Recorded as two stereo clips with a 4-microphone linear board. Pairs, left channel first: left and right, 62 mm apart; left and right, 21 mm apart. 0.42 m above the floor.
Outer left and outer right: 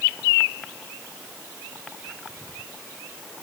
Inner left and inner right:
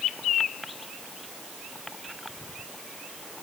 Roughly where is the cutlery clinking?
No cutlery clinking in this recording.